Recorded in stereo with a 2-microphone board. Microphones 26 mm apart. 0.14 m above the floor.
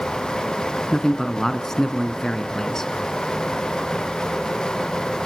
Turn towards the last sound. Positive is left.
turn(degrees=20)  # may be behind; listen again after turning